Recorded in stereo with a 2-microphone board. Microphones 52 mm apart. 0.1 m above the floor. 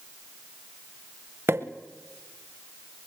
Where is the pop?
50° right (ahead or behind), 1.5 m.